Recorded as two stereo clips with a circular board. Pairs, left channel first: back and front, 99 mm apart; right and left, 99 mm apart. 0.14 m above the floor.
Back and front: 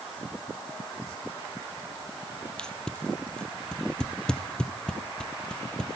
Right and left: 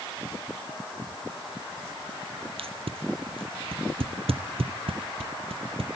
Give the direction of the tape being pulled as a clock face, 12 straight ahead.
9 o'clock.